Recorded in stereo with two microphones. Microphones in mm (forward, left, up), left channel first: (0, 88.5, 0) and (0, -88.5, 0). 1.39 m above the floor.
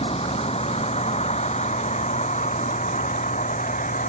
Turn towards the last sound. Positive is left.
turn(degrees=45)  # may be behind; listen again after turning